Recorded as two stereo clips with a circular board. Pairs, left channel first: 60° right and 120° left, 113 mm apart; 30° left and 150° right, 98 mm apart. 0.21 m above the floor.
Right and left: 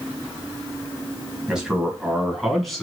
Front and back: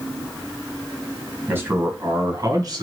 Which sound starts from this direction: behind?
A man speaking, at 1.5 s.